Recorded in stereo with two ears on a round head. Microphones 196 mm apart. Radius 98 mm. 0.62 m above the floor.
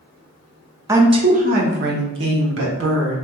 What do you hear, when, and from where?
0.9 s a woman speaking: 15° right (ahead or behind), 0.6 m; by 3.2 s 70° right (ahead or behind), 1.7 m